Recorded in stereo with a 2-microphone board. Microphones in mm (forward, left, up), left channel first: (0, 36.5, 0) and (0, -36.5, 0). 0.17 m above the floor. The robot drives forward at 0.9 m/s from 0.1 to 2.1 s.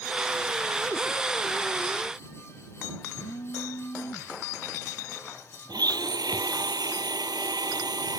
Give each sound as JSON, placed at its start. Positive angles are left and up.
{"t": 3.2, "sound": "a phone buzzing", "side_deg": 80}
{"t": 5.7, "sound": "a blender", "side_deg": -75}